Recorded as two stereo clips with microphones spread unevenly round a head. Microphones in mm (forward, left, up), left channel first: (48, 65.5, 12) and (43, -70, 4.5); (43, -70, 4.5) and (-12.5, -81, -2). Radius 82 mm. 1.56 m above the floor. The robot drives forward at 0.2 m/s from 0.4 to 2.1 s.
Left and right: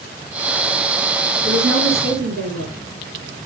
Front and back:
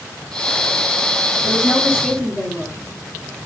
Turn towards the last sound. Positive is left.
turn(degrees=-100)